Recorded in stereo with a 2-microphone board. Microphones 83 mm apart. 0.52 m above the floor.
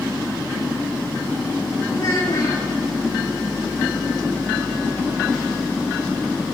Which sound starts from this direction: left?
A child speaking, at 1.9 s.